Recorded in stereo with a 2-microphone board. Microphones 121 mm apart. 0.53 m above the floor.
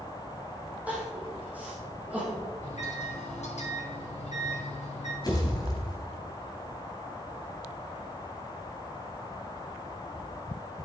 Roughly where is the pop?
Left.